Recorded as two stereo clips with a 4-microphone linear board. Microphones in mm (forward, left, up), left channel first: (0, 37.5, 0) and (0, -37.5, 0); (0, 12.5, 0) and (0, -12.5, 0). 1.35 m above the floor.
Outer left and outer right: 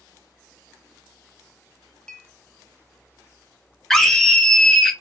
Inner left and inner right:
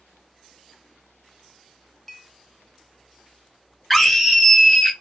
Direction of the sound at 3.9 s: 5° left (ahead or behind).